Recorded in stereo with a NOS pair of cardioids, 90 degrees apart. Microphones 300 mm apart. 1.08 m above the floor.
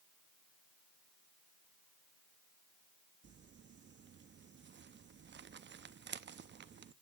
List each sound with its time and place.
3.2 s crumpling: 40° right, 0.9 m